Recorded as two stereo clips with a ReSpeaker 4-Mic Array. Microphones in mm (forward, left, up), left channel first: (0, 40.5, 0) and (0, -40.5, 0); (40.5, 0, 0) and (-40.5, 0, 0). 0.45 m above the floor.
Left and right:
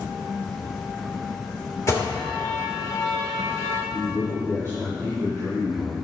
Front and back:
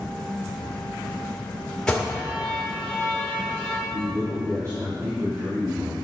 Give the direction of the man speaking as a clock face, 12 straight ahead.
5 o'clock.